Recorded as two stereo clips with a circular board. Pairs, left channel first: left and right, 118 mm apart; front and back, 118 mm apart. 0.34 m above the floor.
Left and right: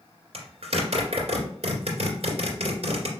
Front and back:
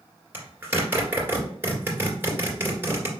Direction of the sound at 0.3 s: 110° right.